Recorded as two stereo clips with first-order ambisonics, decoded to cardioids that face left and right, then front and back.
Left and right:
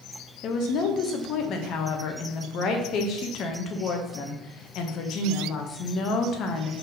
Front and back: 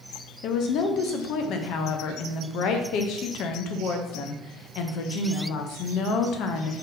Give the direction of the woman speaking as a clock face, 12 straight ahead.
11 o'clock.